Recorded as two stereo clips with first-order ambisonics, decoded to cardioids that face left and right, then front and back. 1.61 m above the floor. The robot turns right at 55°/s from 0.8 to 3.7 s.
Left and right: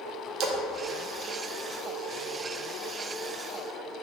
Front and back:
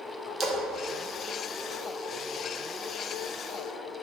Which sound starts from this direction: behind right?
A splash, at 0.4 s.